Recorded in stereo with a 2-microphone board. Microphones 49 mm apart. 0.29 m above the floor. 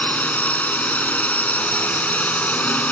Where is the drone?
30° left (ahead or behind).